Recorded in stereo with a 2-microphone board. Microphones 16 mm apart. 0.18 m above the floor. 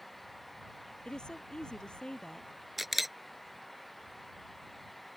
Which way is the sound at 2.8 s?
10° right (ahead or behind).